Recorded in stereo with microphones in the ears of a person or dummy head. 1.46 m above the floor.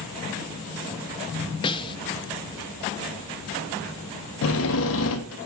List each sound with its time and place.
1.6 s a snare drum: 25° left (ahead or behind), 0.7 m
4.4 s a drill: 60° left (ahead or behind), 1.2 m